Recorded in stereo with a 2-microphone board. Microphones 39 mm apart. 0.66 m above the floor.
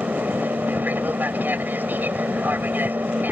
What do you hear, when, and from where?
0.0 s an aircraft: 55° right (ahead or behind)